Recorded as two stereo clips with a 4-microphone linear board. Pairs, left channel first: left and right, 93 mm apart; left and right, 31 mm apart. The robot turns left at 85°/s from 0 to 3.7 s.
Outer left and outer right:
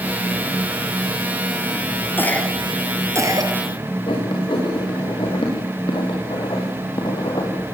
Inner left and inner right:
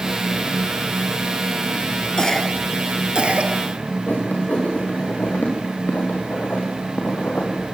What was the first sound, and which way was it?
A cough, 25° left (ahead or behind).